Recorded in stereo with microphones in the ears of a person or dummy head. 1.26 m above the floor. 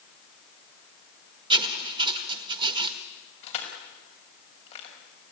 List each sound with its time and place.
1.5 s writing: 20° right (ahead or behind), 1.6 m
3.4 s crushing: 45° left (ahead or behind), 6 m